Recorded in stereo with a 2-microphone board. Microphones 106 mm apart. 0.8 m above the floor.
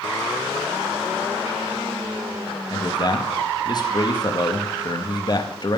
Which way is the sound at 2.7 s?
40° left (ahead or behind).